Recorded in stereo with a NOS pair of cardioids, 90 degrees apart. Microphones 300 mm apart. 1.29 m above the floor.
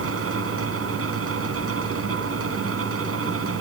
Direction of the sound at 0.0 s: 50° right.